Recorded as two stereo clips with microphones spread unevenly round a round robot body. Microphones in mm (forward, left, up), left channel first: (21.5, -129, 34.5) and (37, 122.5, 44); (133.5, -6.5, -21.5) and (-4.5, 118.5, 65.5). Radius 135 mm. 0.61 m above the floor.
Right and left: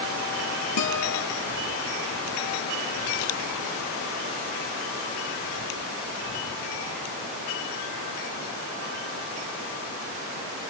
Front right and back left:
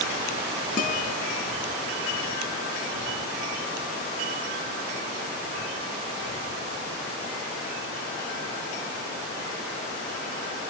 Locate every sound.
0.8 s a guitar: 95° right, 4 m